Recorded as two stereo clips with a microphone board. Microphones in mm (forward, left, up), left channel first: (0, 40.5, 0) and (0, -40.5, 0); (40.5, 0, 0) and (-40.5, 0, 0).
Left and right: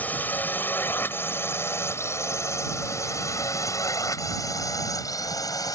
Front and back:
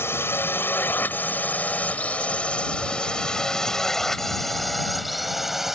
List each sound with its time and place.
0.0 s a drone: 35° left; by 5.8 s 95° left